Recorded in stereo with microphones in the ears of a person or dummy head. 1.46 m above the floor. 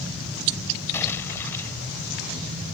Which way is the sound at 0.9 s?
15° left (ahead or behind).